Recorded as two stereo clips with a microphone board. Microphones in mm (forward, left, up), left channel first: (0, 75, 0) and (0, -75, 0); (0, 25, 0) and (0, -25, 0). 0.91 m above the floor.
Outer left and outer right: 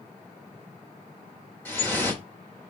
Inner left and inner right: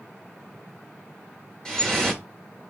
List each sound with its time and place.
1.6 s dripping: 15° left (ahead or behind), 1.2 m